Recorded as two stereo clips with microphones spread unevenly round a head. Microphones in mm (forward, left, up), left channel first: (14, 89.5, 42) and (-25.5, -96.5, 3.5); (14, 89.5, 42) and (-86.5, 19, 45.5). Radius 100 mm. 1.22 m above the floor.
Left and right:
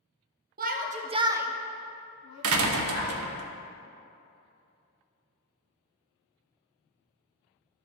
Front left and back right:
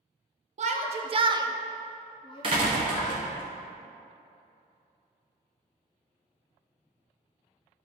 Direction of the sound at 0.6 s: 130° right.